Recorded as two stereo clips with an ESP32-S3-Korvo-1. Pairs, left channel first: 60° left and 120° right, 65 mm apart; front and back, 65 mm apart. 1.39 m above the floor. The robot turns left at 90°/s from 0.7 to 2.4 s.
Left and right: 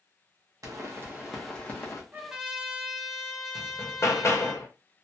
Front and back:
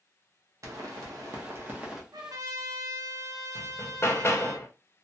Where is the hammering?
35° left, 0.6 m.